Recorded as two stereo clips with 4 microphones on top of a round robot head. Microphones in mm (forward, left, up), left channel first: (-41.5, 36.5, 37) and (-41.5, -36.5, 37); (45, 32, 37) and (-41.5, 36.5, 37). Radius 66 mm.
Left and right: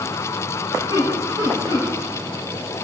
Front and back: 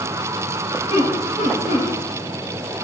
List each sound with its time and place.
0.9 s laughter: 40° right, 8.5 m